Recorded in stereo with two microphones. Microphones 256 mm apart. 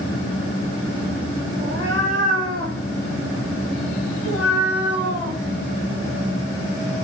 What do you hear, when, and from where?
1.6 s a cat meowing: 50° right (ahead or behind), 7 m; by 5.4 s 80° right, 6.5 m